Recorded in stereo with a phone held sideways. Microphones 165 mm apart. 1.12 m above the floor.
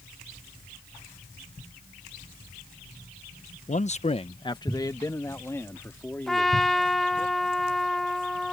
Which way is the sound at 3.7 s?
45° left (ahead or behind).